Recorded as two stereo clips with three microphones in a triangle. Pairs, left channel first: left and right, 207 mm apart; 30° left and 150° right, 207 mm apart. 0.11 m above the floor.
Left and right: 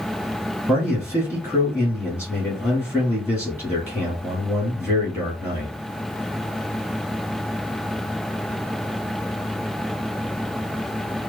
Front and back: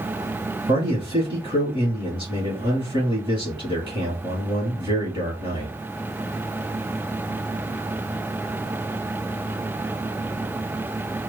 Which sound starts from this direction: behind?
A man speaking, at 0.7 s.